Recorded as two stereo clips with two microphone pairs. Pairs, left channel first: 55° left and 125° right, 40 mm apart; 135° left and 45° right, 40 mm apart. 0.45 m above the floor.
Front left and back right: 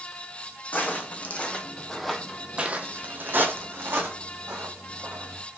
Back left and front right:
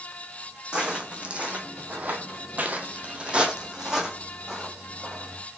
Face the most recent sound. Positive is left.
turn(degrees=-130)